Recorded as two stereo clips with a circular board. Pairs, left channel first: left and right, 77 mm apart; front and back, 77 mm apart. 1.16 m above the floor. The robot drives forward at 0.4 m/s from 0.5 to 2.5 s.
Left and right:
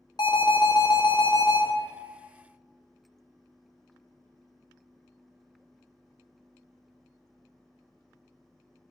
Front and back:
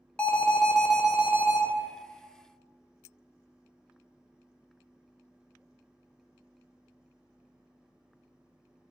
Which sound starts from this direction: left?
An alarm, at 0.2 s.